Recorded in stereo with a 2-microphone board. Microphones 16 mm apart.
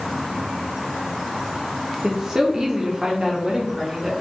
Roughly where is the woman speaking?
Right.